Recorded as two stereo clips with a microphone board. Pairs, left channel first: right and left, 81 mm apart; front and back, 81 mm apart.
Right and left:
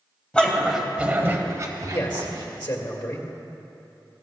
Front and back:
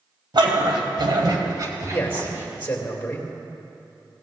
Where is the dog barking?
165° right, 1.8 m; by 2.5 s 120° left, 2.5 m.